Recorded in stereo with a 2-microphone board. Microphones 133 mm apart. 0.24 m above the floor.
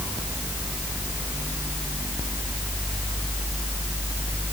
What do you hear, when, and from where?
Only background noise.